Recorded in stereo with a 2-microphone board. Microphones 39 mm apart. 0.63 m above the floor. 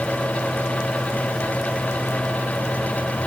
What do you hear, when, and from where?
Only background noise.